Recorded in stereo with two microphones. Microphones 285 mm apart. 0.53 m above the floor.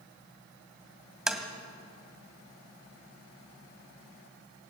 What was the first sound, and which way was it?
Tapping, centre (ahead or behind).